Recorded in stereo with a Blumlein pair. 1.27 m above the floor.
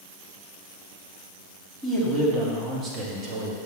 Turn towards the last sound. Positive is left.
turn(degrees=-40)